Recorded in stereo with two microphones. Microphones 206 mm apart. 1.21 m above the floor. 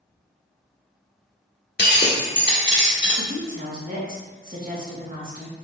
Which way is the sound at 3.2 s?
40° right (ahead or behind).